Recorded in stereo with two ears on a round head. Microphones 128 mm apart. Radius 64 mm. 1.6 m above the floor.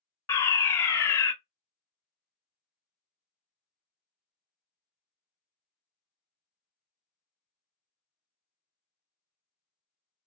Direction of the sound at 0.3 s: 20° left (ahead or behind).